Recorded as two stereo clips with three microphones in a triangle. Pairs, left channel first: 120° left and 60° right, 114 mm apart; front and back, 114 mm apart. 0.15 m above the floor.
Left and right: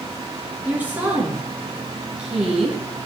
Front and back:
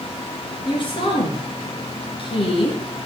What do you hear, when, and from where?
0.7 s a woman speaking: 10° left, 2.5 m; by 2.8 s 25° left, 3 m